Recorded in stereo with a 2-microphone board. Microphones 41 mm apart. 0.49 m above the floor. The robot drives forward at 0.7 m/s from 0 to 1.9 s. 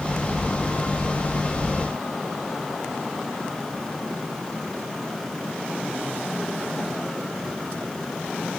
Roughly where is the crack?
No crack in this recording.